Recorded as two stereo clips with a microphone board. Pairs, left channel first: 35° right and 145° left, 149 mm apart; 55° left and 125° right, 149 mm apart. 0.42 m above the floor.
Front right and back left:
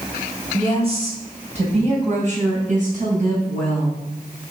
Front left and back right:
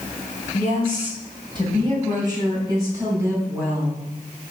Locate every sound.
0.5 s a woman speaking: 170° right, 3 m; by 4.5 s 160° left, 4 m